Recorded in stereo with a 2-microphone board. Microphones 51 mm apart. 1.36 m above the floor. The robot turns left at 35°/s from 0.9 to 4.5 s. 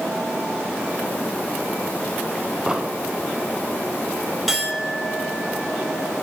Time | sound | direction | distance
2.7 | an explosion | 15° right (ahead or behind) | 1.1 m
4.5 | a clink | centre (ahead or behind) | 2.5 m